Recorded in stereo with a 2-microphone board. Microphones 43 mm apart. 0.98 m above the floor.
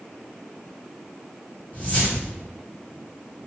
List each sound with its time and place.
1.7 s a whoosh: 40° left (ahead or behind), 1.3 m